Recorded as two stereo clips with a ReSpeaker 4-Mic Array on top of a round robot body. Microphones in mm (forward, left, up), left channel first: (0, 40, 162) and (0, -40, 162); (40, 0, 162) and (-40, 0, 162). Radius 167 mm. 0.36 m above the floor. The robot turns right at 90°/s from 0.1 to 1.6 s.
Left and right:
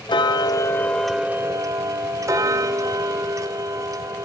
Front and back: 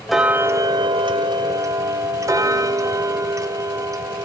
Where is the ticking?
90° left, 1.3 m; by 4.2 s 135° right, 1.3 m.